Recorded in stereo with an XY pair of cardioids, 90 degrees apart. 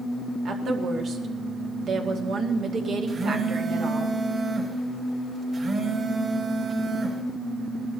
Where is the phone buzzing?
50° right, 5 m.